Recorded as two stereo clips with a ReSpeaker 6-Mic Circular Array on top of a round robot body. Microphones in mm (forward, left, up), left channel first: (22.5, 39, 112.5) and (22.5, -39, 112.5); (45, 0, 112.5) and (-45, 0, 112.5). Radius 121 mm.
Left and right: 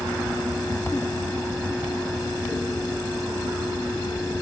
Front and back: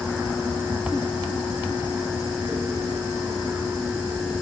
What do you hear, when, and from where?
Only background noise.